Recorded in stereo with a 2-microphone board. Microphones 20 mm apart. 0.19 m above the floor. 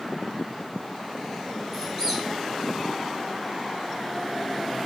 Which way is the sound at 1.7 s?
20° right (ahead or behind).